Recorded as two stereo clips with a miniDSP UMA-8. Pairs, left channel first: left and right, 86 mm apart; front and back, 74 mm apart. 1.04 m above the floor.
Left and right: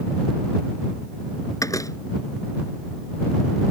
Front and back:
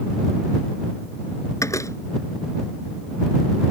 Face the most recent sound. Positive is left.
turn(degrees=45)